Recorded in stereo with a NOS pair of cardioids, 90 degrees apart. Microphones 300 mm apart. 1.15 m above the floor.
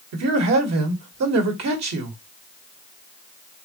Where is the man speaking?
60° right, 1.8 m.